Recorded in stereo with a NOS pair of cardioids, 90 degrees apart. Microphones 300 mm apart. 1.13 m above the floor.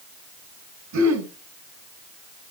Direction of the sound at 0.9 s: 65° right.